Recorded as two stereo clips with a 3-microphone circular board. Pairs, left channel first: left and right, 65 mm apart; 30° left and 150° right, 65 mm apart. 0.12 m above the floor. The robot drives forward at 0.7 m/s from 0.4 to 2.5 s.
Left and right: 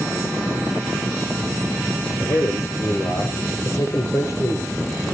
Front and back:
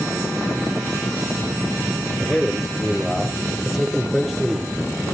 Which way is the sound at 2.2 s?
120° left.